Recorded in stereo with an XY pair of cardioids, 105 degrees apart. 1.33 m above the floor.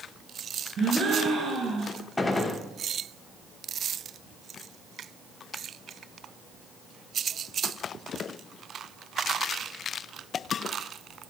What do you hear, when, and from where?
0.8 s a gasp: 45° right, 4.5 m
2.2 s a gunshot: 20° left, 2 m